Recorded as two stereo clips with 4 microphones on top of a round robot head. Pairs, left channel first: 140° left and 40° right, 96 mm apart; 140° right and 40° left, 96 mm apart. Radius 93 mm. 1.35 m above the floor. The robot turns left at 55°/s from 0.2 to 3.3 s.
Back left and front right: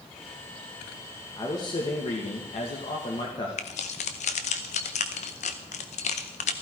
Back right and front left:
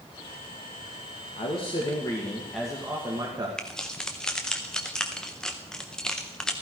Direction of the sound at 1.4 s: 160° right.